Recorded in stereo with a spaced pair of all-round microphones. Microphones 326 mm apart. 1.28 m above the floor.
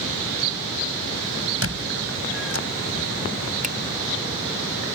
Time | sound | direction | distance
1.6 | a squeak | 45° right (ahead or behind) | ?
3.6 | a finger snap | 25° right (ahead or behind) | ?